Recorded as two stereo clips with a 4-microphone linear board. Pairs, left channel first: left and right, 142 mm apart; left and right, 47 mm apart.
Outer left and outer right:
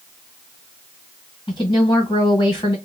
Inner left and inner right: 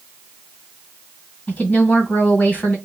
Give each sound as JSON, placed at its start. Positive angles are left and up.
{"t": 1.5, "sound": "a woman speaking", "side_deg": 30, "distance_m": 1.5}